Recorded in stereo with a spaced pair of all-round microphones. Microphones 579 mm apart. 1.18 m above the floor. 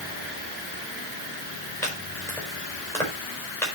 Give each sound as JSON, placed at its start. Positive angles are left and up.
{"t": 1.8, "sound": "chopping", "side_deg": 5, "distance_m": 5.0}